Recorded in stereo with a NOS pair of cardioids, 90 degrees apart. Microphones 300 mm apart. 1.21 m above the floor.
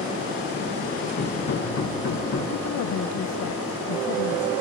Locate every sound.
1.2 s hammering: 65° left, 6 m
2.5 s a woman speaking: 70° left, 0.7 m